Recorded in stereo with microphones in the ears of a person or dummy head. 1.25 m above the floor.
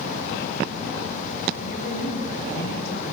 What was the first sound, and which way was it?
A woman speaking, 55° left (ahead or behind).